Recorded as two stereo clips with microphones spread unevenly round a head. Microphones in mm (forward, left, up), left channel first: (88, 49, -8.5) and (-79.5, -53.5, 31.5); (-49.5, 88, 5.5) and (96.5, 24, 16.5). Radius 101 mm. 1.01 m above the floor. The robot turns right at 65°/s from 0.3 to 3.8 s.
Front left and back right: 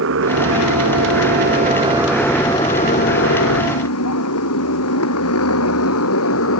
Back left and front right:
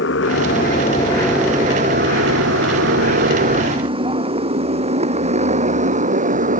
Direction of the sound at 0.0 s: 175° right.